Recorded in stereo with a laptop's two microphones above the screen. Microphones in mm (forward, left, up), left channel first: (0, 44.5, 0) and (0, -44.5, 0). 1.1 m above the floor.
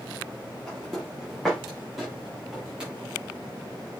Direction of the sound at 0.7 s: 10° left (ahead or behind).